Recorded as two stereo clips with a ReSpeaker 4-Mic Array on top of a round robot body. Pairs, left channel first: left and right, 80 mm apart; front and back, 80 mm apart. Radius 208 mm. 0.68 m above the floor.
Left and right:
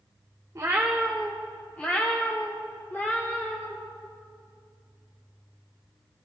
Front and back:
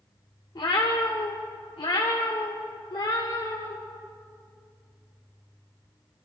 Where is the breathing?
No breathing in this recording.